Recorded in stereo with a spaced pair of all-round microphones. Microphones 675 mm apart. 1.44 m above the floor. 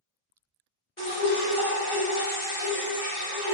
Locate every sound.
1.0 s dripping: 20° left (ahead or behind), 1.1 m